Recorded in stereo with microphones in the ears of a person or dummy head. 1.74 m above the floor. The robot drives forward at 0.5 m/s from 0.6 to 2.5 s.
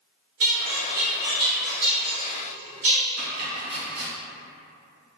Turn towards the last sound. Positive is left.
turn(degrees=-55)  # may be behind; listen again after turning